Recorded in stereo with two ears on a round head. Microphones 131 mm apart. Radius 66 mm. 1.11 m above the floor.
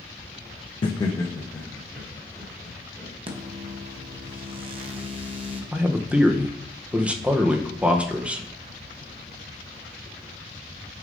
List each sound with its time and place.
0.8 s laughter: 40° left (ahead or behind), 0.6 m; by 3.1 s 5° left (ahead or behind), 4 m
3.3 s a microwave: 35° right (ahead or behind), 1.0 m
5.7 s a man speaking: 10° right (ahead or behind), 0.8 m